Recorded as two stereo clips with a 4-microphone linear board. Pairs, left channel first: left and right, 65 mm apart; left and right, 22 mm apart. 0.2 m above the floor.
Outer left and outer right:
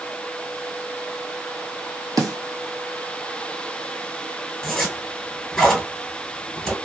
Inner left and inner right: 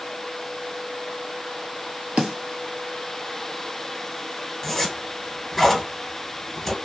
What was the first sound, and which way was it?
A snare drum, 80° right.